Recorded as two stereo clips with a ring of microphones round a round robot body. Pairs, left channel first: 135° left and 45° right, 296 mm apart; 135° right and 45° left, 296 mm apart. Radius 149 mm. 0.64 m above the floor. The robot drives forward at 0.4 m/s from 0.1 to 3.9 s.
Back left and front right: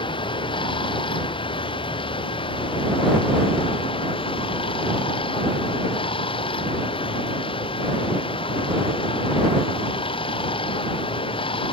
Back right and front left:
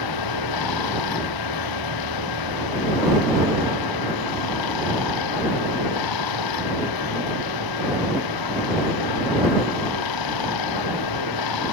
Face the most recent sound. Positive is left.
turn(degrees=-150)